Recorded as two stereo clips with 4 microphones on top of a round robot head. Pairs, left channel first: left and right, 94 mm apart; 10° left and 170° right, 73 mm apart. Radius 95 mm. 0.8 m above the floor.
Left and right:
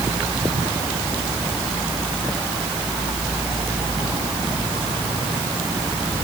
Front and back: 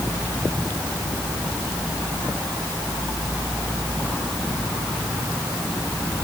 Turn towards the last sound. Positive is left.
No sound to turn to.